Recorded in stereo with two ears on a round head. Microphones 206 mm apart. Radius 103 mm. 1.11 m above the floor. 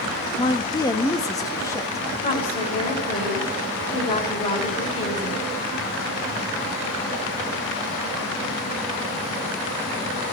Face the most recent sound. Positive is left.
turn(degrees=30)  # may be behind; listen again after turning